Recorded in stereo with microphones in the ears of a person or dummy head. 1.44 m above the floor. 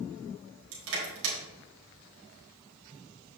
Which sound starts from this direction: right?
Crushing, at 0.7 s.